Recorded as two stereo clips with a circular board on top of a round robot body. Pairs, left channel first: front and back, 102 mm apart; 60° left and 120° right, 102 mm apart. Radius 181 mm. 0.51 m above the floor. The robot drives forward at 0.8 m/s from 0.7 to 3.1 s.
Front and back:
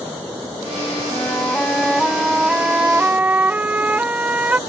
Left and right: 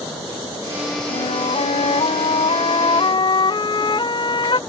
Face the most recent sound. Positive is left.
turn(degrees=105)